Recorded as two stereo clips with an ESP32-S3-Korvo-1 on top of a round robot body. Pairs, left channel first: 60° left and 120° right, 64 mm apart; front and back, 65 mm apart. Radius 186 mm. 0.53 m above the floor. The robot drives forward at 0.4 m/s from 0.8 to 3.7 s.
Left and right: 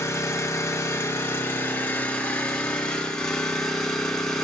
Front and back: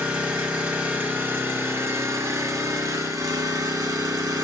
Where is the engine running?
105° left, 1.2 m; by 4.5 s 140° left, 1.9 m.